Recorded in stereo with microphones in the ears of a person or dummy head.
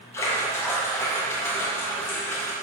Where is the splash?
15° left (ahead or behind), 0.8 m.